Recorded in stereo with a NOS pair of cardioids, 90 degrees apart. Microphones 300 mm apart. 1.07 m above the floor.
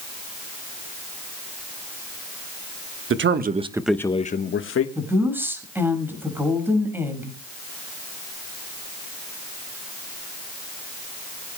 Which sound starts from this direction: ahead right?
A man speaking, at 3.1 s.